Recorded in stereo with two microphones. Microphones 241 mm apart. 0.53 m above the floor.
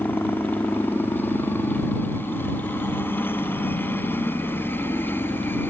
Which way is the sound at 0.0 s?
10° left (ahead or behind).